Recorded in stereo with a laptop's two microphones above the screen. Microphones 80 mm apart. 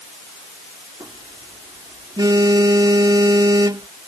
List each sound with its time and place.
1.0 s a phone buzzing: 65° right (ahead or behind)